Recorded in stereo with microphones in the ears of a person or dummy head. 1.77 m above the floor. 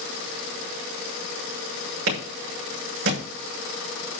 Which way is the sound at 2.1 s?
75° right (ahead or behind).